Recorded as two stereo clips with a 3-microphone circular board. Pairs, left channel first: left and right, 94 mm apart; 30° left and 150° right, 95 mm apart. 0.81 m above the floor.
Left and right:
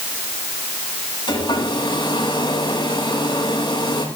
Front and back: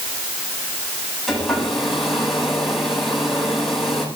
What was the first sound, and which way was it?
A hair dryer, 120° left.